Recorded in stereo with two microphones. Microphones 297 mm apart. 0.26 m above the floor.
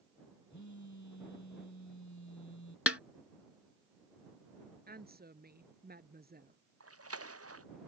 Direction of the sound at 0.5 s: 65° left (ahead or behind).